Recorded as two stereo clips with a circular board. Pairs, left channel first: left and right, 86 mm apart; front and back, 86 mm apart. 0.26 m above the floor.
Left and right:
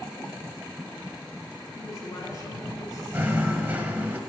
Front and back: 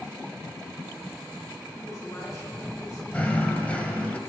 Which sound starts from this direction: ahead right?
Knocking, at 3.1 s.